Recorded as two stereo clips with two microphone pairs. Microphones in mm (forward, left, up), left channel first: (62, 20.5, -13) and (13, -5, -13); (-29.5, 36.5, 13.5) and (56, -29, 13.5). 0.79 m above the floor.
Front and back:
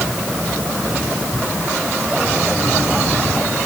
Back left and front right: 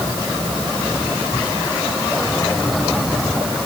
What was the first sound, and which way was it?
Only background noise.